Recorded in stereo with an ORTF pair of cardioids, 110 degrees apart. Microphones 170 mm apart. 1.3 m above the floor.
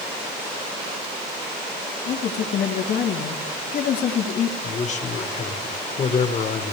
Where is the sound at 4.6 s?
45° left, 1.3 m.